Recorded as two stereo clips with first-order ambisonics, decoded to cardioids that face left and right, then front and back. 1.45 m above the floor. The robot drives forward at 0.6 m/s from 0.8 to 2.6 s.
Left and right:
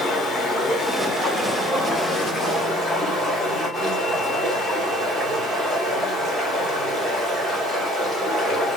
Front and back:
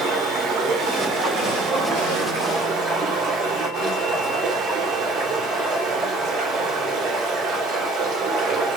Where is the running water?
155° left, 1.1 m; by 8.8 s 170° left, 2.0 m.